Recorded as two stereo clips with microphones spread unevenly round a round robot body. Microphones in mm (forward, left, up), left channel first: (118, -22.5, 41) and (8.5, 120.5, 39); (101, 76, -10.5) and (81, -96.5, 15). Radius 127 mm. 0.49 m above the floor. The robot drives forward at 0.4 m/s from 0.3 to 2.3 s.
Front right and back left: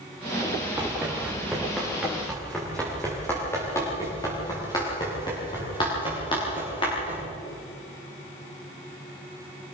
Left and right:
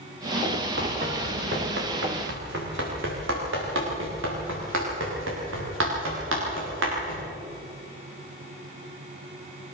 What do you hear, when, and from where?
0.8 s running footsteps: 150° right, 3.5 m; by 7.2 s 125° right, 10 m